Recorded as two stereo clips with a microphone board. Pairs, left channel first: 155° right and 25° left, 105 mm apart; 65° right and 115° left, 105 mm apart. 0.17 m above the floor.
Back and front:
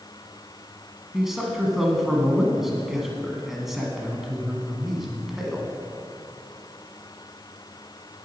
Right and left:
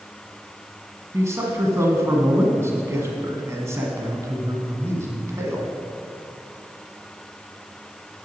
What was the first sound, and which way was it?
A man speaking, 105° left.